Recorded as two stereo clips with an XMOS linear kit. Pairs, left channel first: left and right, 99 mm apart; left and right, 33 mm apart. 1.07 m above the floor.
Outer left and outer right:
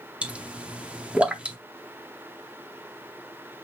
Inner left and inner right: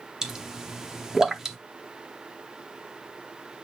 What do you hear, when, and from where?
0.2 s a pop: 15° right (ahead or behind), 0.6 m